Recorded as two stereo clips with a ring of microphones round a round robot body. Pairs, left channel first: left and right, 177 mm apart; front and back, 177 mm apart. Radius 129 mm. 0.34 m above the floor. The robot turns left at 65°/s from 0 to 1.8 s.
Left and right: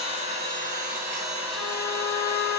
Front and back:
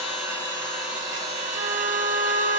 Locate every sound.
0.0 s an engine running: 40° right, 1.2 m; by 2.6 s 160° right, 1.2 m
1.6 s a trumpet: 145° right, 0.8 m; by 2.6 s 165° right, 0.8 m